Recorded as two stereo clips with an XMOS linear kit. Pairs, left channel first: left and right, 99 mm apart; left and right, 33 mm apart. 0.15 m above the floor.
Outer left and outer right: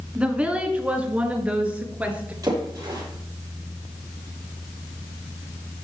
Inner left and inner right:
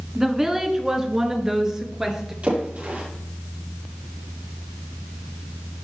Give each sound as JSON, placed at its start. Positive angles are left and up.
{"t": 0.1, "sound": "a woman speaking", "side_deg": -10, "distance_m": 1.5}
{"t": 2.4, "sound": "a splash", "side_deg": -40, "distance_m": 4.5}